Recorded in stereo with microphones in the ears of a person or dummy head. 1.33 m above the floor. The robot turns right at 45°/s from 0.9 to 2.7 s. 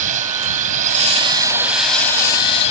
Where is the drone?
45° right; by 2.7 s 40° left.